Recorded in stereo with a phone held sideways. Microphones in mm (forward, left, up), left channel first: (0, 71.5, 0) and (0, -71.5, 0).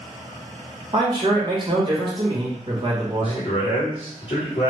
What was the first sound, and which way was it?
A man speaking, 35° right (ahead or behind).